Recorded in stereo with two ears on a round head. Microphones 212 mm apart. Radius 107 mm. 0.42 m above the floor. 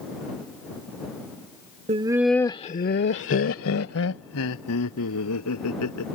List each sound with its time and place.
1.9 s laughter: 25° right (ahead or behind); by 6.2 s 80° left